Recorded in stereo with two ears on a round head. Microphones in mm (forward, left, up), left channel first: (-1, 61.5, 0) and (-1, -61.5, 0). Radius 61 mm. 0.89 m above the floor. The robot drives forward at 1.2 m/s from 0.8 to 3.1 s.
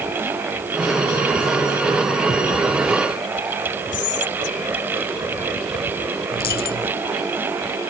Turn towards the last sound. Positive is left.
turn(degrees=75)  # may be behind; listen again after turning